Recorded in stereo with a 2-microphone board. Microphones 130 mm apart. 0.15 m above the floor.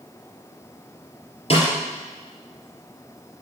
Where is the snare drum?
50° left (ahead or behind), 3 m.